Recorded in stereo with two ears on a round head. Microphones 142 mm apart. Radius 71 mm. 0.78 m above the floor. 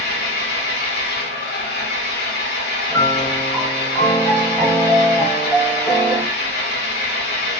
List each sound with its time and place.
0.0 s an engine running: 70° left (ahead or behind), 1.0 m
2.9 s a piano: centre (ahead or behind), 1.3 m